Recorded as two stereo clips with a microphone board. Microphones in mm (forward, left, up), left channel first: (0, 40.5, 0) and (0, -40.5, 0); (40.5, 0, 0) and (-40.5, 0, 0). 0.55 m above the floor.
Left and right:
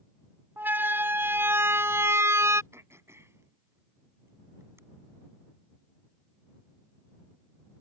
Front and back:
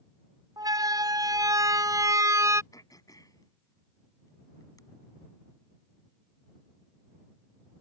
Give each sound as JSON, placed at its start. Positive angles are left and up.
{"t": 0.6, "sound": "a siren", "azimuth_deg": -155}
{"t": 2.7, "sound": "throat clearing", "azimuth_deg": -35}